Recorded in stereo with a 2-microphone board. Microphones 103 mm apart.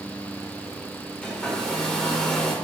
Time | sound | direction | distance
1.2 | a hair dryer | 10° left (ahead or behind) | 1.4 m